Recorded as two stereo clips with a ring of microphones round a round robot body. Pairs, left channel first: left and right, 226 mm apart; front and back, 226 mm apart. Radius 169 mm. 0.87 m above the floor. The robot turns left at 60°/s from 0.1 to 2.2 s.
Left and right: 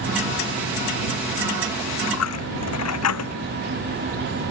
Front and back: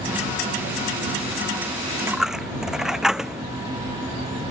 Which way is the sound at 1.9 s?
110° left.